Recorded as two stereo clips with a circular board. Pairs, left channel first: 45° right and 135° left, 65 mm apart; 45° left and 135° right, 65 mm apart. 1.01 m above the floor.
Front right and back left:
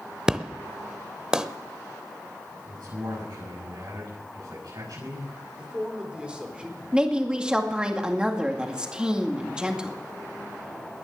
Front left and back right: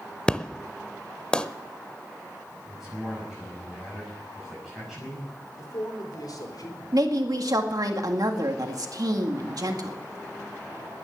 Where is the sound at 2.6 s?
140° left, 8 m.